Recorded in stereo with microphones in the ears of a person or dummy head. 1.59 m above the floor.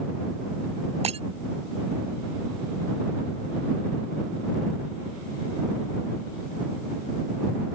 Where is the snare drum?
No snare drum in this recording.